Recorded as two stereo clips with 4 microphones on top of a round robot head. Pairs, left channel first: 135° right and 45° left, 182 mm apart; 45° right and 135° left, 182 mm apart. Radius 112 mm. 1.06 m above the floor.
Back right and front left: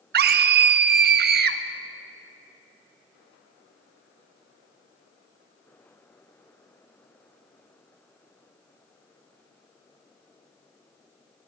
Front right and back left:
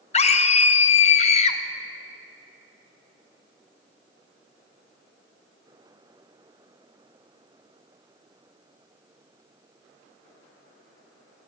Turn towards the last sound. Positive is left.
turn(degrees=10)